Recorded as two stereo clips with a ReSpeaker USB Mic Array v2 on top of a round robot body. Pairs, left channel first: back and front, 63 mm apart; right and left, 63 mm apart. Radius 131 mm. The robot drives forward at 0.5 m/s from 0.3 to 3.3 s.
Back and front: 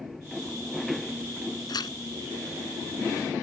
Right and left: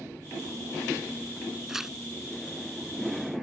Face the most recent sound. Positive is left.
turn(degrees=175)